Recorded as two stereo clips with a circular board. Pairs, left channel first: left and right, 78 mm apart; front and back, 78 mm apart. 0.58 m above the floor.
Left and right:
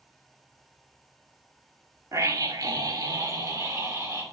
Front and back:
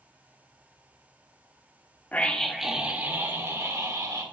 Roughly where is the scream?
Ahead right.